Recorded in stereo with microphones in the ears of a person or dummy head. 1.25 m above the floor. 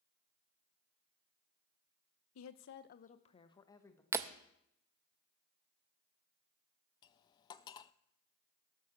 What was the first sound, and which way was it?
A woman speaking, 85° left.